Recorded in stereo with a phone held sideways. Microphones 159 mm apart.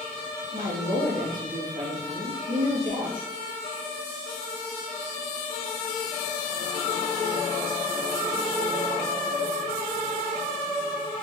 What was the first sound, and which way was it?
A woman speaking, 60° right (ahead or behind).